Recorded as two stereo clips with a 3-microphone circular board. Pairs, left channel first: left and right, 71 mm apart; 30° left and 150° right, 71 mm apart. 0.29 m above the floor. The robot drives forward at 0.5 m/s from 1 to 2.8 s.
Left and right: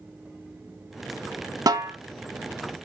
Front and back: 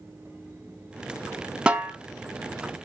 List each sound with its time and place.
1.7 s a snare drum: 75° right, 0.5 m; by 1.9 s 90° right, 0.5 m